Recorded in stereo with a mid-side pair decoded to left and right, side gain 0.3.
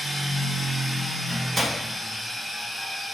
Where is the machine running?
20° right, 1.2 m.